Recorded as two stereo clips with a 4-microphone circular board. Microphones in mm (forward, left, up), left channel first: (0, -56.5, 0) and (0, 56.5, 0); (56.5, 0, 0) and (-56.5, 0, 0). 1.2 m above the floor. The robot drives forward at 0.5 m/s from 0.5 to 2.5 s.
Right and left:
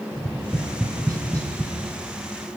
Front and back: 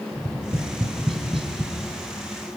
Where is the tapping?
140° left, 3 m; by 1.7 s 150° left, 3 m.